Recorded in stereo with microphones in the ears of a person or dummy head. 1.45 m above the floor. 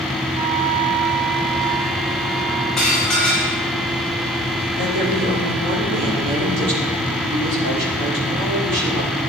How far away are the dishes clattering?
About 4.5 m.